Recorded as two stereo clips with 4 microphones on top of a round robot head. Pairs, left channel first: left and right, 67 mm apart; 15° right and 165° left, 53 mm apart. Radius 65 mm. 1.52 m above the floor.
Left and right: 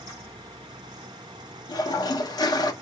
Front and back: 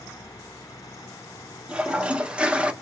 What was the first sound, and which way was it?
A toilet flushing, 95° left.